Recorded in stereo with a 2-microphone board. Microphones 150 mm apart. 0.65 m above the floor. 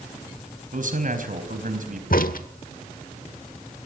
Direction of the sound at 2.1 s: 70° left (ahead or behind).